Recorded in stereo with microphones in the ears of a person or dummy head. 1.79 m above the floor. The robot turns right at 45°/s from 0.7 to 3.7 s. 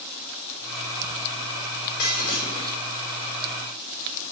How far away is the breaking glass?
About 4 m.